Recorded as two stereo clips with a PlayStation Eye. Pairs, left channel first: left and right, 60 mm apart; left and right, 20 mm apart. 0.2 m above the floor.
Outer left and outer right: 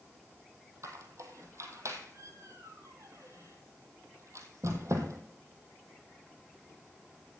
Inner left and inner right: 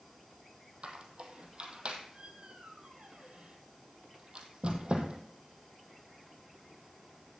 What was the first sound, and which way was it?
A squeak, 55° right (ahead or behind).